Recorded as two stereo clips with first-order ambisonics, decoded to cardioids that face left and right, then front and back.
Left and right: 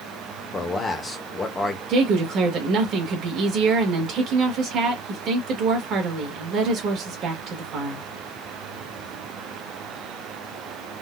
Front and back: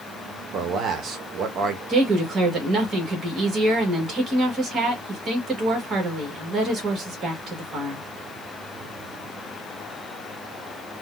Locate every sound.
0.5 s a man speaking: 155° left, 0.8 m
1.9 s a woman speaking: 130° right, 1.5 m